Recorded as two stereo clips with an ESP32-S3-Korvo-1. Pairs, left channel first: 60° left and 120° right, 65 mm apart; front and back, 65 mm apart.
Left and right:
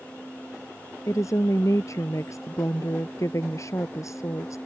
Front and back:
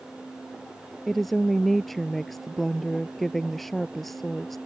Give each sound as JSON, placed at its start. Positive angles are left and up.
{"t": 1.1, "sound": "a woman speaking", "azimuth_deg": 90}